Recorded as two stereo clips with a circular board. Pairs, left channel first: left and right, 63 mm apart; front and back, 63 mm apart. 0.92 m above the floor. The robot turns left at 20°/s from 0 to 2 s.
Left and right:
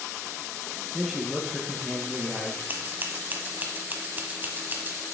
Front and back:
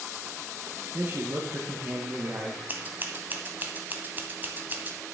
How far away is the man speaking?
About 0.9 m.